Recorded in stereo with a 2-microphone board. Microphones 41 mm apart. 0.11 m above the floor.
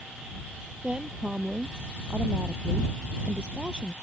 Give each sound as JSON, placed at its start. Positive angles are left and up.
{"t": 0.8, "sound": "a woman speaking", "side_deg": -20}